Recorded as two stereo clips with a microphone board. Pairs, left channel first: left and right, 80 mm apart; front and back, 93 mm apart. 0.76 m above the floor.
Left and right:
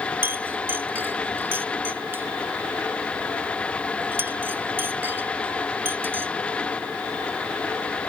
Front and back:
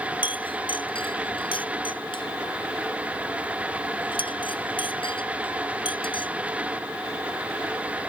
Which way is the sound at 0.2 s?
25° right.